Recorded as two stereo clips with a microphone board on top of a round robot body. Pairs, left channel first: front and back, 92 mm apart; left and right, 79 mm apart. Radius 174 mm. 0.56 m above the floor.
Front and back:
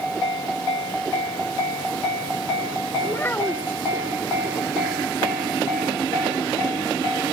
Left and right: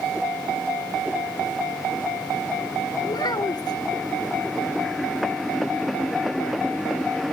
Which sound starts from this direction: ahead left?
A child speaking, at 3.1 s.